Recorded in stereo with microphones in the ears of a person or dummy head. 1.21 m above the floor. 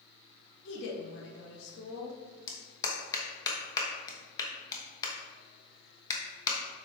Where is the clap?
20° left (ahead or behind), 1.0 m.